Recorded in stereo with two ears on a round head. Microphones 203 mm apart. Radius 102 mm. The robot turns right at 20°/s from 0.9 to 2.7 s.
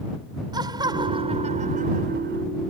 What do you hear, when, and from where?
0.5 s laughter: 160° right; by 2.4 s 130° right